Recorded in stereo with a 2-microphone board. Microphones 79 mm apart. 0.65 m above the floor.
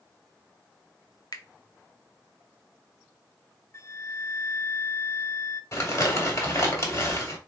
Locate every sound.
1.3 s a finger snap: 55° left (ahead or behind), 0.8 m
3.7 s a flute: 40° left (ahead or behind), 0.5 m
5.7 s crumpling: 45° left (ahead or behind), 2.0 m